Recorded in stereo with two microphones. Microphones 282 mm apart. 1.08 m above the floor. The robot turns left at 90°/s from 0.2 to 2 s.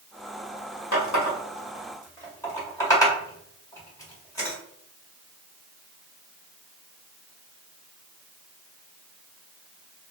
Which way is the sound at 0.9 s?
70° left (ahead or behind).